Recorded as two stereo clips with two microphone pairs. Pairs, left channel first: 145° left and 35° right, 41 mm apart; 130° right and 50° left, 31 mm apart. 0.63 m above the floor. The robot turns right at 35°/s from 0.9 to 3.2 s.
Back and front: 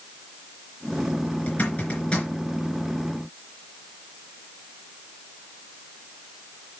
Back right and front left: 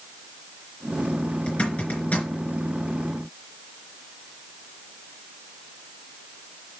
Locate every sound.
1.5 s a zipper: straight behind, 3.5 m; by 2.3 s 150° right, 3.5 m